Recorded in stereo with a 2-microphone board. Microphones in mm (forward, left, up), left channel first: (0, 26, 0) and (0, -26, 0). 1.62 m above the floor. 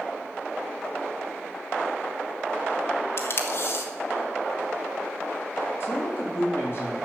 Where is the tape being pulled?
55° left (ahead or behind), 1.6 m.